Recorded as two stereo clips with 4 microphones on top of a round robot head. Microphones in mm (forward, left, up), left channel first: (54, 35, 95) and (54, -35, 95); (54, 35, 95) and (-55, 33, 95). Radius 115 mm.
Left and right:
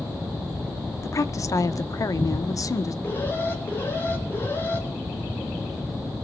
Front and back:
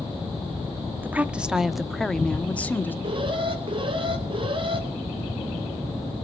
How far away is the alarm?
About 5 m.